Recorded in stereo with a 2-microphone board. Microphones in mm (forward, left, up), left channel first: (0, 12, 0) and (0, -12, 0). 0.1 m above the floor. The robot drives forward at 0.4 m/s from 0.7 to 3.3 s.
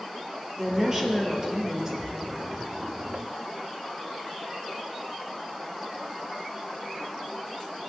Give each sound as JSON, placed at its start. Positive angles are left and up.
{"t": 0.6, "sound": "a woman speaking", "side_deg": -20, "distance_m": 2.5}
{"t": 2.0, "sound": "a splash", "side_deg": 15, "distance_m": 1.7}